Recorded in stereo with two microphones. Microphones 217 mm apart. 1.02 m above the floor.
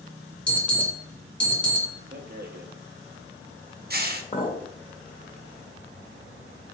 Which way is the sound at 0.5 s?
5° left (ahead or behind).